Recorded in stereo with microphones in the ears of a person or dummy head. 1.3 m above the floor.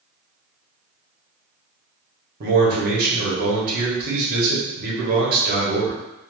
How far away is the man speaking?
About 1.1 m.